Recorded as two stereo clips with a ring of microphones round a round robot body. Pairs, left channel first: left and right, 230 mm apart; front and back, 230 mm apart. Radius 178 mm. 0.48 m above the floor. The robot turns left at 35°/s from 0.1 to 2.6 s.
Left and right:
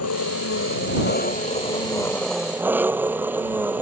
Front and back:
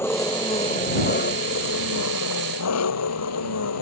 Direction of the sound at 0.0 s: 80° left.